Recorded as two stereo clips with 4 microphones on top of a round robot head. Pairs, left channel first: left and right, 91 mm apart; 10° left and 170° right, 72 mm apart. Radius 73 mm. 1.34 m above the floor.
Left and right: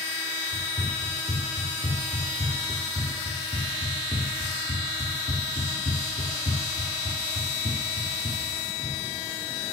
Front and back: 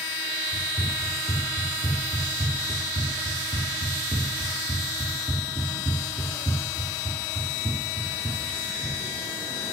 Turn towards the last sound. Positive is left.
turn(degrees=85)